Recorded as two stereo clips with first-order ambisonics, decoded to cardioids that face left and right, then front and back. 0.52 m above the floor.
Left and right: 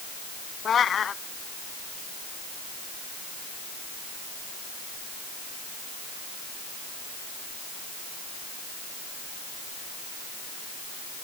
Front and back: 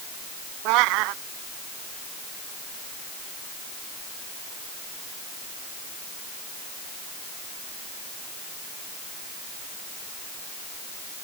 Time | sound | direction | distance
0.7 | a cat meowing | 155° left | ?